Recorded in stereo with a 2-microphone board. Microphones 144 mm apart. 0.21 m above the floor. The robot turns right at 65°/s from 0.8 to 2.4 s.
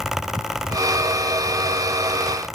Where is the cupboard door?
No cupboard door in this recording.